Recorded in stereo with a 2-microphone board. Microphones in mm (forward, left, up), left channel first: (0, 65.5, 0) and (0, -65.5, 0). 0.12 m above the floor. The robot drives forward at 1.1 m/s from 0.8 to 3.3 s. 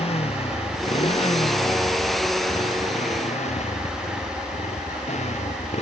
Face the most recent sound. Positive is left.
turn(degrees=60)  # may be behind; listen again after turning